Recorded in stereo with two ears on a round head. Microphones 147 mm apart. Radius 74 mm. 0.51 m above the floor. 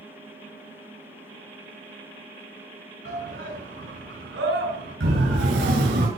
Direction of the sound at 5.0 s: 80° right.